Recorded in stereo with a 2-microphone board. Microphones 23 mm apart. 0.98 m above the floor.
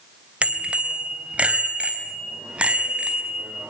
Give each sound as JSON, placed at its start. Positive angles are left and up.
{"t": 0.4, "sound": "a bicycle bell", "side_deg": -65, "distance_m": 3.0}